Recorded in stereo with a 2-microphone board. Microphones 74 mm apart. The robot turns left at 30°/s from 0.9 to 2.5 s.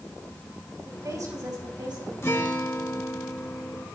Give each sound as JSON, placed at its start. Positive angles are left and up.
{"t": 0.8, "sound": "a woman speaking", "azimuth_deg": -45, "distance_m": 6.0}
{"t": 2.2, "sound": "a guitar", "side_deg": 35, "distance_m": 1.9}